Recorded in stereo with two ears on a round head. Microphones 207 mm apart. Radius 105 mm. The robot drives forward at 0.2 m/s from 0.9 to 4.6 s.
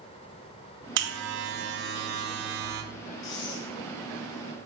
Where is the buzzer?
55° right (ahead or behind), 3 m; by 2.8 s 50° right (ahead or behind), 3 m.